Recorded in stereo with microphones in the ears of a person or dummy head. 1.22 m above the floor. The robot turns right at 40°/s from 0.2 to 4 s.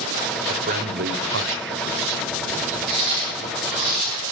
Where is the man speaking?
35° right (ahead or behind), 0.8 m.